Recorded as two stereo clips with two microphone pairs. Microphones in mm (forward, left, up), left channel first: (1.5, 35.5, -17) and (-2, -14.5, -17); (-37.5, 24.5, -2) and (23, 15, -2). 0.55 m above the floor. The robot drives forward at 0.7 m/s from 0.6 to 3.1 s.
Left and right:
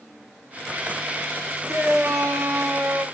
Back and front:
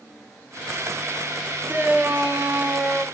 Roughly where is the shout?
Right.